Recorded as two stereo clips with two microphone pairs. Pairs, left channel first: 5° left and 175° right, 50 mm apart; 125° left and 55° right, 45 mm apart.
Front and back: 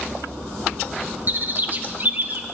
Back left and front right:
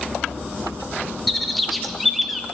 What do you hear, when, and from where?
1.3 s a bird: 150° right, 0.8 m